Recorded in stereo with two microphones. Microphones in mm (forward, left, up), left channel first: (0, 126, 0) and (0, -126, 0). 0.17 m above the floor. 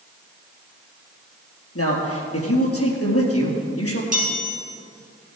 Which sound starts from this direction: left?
A man speaking, at 1.8 s.